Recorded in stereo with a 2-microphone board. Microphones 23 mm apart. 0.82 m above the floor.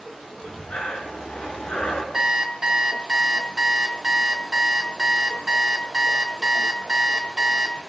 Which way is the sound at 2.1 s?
25° right (ahead or behind).